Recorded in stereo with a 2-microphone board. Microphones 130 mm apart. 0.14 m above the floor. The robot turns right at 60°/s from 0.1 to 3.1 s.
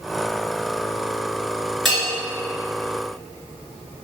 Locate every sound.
1.9 s a bell: centre (ahead or behind), 1.8 m; by 2.1 s 10° right (ahead or behind), 1.8 m